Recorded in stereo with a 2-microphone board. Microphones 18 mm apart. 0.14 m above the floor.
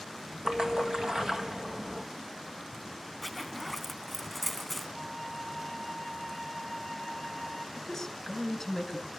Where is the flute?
5° left (ahead or behind), 3.5 m.